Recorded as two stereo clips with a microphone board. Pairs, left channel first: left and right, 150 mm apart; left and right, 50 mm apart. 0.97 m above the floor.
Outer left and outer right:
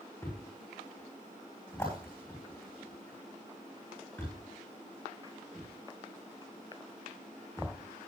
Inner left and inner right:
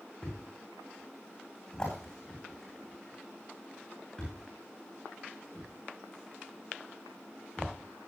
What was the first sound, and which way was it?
A thud, 20° left (ahead or behind).